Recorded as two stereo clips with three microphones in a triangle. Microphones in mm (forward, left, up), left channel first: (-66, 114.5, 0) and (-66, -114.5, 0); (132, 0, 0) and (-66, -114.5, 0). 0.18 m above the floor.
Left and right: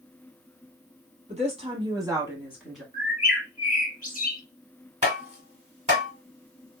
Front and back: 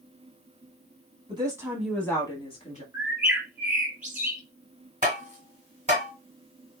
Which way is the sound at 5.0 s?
125° right.